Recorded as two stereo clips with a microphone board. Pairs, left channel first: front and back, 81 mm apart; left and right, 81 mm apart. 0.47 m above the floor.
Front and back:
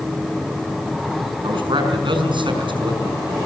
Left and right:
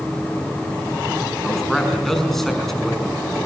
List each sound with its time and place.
1.4 s a man speaking: 175° left, 5.5 m